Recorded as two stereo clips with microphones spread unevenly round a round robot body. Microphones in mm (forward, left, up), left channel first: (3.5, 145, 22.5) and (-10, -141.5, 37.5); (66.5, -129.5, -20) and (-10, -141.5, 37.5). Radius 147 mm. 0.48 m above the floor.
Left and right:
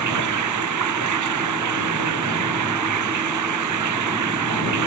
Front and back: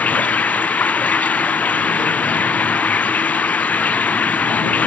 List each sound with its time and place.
0.0 s running water: 60° right